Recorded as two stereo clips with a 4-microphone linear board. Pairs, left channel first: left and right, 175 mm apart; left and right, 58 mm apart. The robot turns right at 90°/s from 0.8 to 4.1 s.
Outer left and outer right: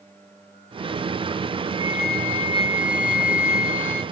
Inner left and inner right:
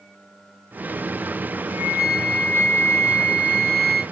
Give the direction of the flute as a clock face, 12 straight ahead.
1 o'clock.